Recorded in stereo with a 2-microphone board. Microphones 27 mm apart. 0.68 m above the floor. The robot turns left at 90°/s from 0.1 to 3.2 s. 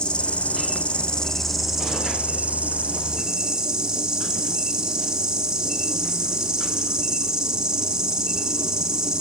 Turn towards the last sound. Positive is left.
turn(degrees=-150)